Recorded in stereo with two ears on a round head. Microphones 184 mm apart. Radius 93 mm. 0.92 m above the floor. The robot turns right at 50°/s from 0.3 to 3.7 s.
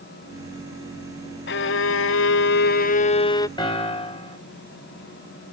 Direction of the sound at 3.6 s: 20° left (ahead or behind).